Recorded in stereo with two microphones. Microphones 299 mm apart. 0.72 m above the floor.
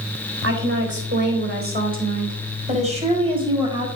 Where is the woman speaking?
45° right (ahead or behind), 4 m; by 3.9 s 15° right (ahead or behind), 4.5 m.